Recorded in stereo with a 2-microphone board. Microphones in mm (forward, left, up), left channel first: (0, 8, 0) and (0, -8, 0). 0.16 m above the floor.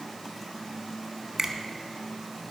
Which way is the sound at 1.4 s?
20° right (ahead or behind).